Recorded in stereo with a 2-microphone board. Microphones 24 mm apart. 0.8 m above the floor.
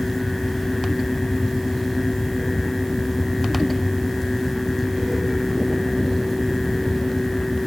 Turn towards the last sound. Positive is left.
No sound to turn to.